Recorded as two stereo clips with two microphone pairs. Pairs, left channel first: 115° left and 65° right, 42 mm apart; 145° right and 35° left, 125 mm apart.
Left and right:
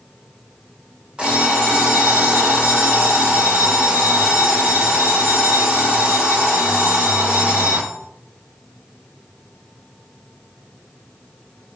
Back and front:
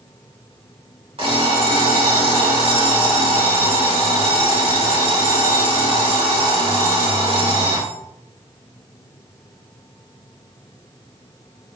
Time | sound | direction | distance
1.2 | an alarm clock | 5° right | 2.5 m